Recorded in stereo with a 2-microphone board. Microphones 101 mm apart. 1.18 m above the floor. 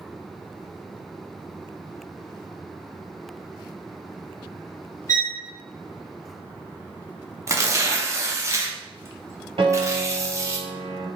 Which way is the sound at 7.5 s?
30° right (ahead or behind).